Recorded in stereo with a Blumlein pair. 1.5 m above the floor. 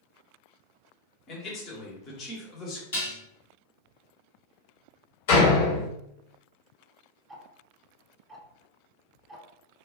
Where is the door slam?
55° left, 1.1 m.